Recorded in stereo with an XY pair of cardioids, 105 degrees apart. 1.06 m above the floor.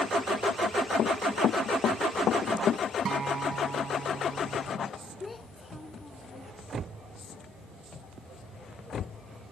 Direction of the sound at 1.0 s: 60° left.